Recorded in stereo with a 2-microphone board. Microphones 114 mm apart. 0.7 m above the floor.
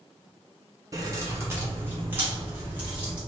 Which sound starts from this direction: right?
Keys jangling, at 0.9 s.